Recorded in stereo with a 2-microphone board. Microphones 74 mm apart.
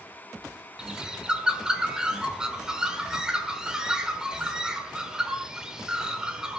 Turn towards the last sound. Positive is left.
turn(degrees=-10)  # may be behind; listen again after turning